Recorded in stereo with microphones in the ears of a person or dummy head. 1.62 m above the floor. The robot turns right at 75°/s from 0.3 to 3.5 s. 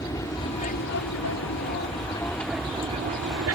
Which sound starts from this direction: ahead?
An aircraft, at 0.0 s.